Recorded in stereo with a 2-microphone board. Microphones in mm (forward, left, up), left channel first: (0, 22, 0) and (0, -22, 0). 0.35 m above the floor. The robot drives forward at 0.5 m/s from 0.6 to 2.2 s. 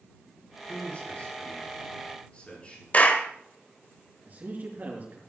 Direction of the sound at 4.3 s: 45° right (ahead or behind).